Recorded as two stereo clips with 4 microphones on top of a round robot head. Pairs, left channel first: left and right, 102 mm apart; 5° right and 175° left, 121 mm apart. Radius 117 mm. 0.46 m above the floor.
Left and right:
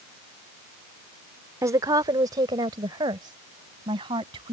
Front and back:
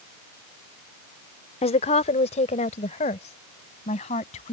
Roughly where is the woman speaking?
Ahead right.